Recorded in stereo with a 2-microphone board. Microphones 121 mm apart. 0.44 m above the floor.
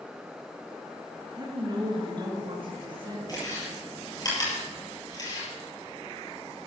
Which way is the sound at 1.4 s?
35° right (ahead or behind).